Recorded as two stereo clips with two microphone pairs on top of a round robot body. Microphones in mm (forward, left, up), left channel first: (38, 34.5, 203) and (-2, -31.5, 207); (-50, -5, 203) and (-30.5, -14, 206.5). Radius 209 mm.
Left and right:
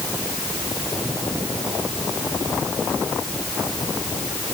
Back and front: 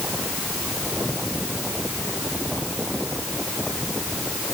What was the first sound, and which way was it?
Only background noise.